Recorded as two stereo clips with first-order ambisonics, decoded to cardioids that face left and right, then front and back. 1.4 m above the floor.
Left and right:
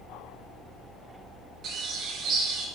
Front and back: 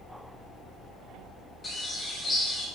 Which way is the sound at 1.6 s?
65° right.